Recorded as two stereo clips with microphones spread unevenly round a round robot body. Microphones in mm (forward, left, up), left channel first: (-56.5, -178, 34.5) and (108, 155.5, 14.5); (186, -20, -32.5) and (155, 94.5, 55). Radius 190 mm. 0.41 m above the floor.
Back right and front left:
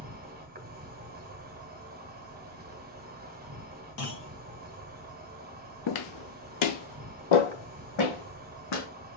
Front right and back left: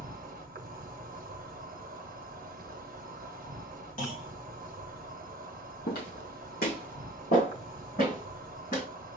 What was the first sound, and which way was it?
An insect, 90° left.